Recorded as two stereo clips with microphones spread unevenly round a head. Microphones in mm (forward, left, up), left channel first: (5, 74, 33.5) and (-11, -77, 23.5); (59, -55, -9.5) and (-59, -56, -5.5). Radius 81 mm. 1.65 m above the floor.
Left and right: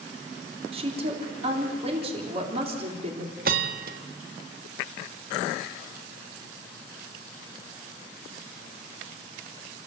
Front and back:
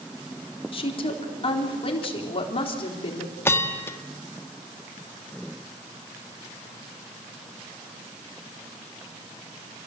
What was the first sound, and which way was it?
A woman speaking, 40° right.